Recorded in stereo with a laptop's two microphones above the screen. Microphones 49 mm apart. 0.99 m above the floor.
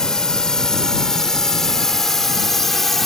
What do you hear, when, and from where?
0.0 s a drone: 15° left (ahead or behind); by 3.1 s 5° left (ahead or behind)